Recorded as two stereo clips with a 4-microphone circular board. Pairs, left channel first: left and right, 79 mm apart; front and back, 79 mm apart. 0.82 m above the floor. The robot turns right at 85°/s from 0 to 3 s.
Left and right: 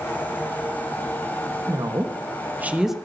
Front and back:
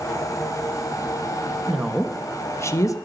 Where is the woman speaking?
110° right, 1.2 m; by 3.0 s straight ahead, 1.2 m.